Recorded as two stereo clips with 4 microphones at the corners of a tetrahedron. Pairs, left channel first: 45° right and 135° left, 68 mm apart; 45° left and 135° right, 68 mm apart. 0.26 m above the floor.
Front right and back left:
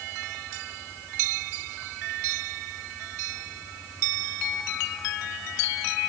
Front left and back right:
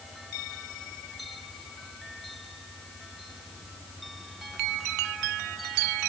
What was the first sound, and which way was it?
Only background noise.